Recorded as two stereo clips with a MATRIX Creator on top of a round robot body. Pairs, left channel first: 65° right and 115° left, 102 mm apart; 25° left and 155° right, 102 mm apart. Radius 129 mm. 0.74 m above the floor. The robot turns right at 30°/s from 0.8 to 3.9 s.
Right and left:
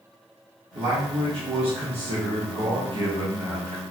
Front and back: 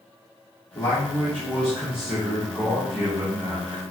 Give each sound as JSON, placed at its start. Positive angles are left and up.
{"t": 0.8, "sound": "a man speaking", "azimuth_deg": 80, "distance_m": 1.1}